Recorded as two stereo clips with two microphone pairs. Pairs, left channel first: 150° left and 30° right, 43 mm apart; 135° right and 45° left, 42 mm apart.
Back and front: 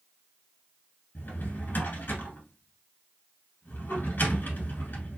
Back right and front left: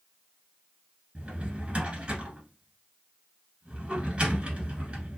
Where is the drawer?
105° left, 1.2 m.